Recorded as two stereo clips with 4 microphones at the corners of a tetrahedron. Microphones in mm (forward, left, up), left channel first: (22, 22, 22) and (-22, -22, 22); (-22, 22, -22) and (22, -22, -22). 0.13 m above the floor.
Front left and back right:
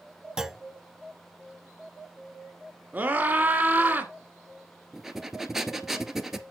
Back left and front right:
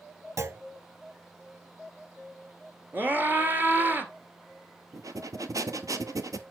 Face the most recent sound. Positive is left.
turn(degrees=-50)